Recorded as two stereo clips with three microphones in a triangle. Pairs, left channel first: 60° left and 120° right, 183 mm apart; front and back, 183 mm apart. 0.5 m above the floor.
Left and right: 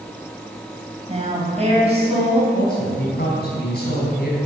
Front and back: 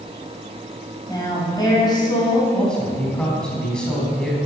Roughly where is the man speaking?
Left.